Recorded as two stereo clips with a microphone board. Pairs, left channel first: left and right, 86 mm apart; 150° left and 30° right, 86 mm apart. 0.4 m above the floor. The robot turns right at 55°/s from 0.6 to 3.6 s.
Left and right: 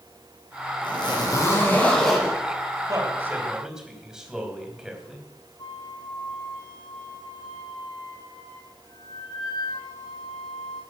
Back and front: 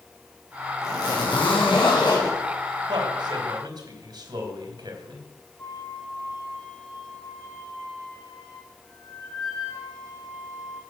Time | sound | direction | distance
0.8 | a zipper | 105° left | 4 m
2.9 | a man speaking | 50° right | 3 m
5.6 | a flute | 100° left | 8.5 m